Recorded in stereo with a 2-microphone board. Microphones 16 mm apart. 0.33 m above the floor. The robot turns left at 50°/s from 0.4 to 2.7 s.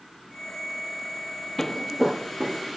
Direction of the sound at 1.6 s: 30° left (ahead or behind).